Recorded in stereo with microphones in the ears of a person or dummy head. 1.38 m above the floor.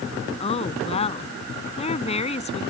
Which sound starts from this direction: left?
A woman speaking, at 0.4 s.